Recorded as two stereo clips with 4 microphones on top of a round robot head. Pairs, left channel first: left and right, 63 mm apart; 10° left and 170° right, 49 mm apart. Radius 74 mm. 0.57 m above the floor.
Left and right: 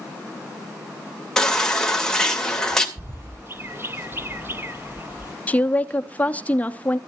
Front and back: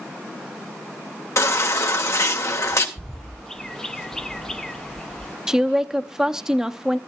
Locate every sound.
1.4 s a baby crying: 10° left, 2 m
3.0 s a bird: 60° right, 0.8 m
5.5 s a woman speaking: 125° left, 0.9 m